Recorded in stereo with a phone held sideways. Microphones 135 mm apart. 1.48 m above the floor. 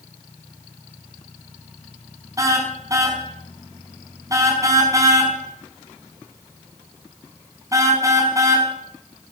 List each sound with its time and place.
2.4 s a car horn: 25° right (ahead or behind), 5 m